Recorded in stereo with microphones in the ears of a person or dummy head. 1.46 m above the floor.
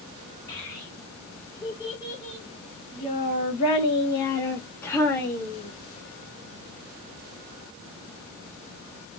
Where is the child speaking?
15° left (ahead or behind), 1.8 m; by 5.7 s 5° left (ahead or behind), 1.3 m.